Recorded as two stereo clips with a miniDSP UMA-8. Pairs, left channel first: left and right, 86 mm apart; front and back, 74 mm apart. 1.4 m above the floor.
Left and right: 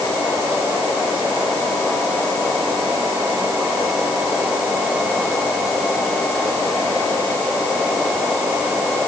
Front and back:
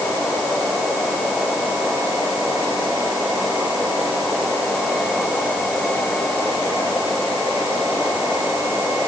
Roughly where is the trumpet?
I don't hear a trumpet.